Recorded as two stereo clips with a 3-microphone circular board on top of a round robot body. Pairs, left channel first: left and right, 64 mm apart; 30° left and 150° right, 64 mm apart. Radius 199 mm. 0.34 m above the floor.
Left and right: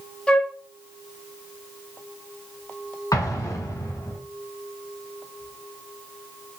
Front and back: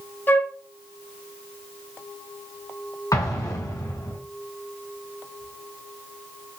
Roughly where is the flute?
Ahead left.